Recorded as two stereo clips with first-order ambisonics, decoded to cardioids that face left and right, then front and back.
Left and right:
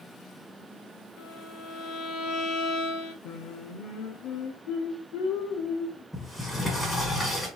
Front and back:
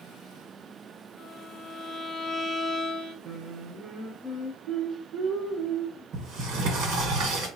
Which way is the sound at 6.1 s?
165° left.